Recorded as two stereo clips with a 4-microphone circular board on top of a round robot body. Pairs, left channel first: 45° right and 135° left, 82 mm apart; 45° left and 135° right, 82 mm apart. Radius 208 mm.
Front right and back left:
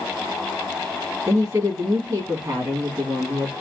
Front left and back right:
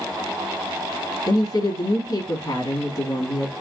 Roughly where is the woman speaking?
Left.